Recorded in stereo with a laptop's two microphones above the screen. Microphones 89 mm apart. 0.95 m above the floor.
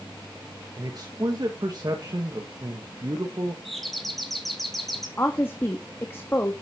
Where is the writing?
No writing in this recording.